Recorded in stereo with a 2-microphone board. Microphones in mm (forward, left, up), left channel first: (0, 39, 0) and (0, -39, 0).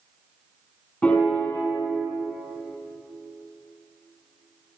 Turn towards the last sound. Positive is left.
turn(degrees=15)  # may be behind; listen again after turning